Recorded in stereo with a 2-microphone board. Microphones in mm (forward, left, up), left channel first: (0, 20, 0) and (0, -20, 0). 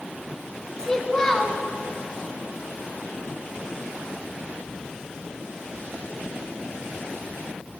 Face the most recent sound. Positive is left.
turn(degrees=15)  # may be behind; listen again after turning